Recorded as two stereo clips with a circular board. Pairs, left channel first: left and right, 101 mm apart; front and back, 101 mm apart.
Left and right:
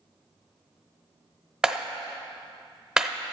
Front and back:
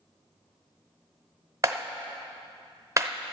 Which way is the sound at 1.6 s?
165° right.